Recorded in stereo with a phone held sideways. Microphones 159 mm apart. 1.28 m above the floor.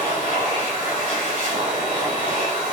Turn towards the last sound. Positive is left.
turn(degrees=-55)  # may be behind; listen again after turning